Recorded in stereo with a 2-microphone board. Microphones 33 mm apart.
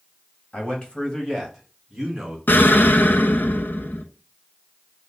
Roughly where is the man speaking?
Left.